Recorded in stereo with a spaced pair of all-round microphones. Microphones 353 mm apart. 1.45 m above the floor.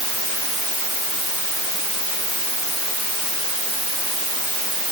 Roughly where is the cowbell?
No cowbell in this recording.